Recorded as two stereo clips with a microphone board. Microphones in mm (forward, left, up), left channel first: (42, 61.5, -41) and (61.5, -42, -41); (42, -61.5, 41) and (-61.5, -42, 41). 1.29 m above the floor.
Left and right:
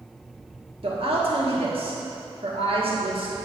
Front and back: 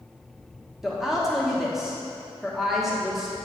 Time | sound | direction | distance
0.8 | a woman speaking | 105° right | 1.6 m